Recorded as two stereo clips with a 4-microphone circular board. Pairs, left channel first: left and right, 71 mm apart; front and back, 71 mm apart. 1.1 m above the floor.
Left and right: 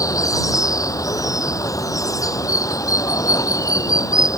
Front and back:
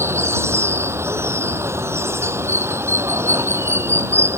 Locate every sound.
0.0 s running water: 125° left